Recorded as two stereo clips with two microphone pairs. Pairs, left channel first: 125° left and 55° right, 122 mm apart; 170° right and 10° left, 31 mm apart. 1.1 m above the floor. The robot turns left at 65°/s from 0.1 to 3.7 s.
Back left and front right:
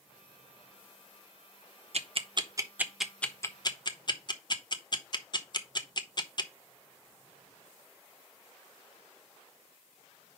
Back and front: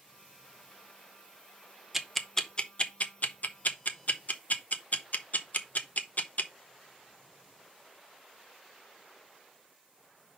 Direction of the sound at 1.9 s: 70° right.